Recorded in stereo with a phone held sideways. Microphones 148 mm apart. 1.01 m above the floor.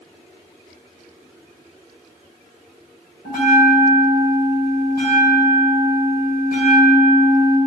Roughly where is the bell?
Left.